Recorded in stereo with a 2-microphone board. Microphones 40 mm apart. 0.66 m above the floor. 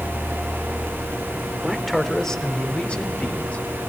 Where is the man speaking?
10° right (ahead or behind), 2 m; by 3.6 s 35° left (ahead or behind), 4 m.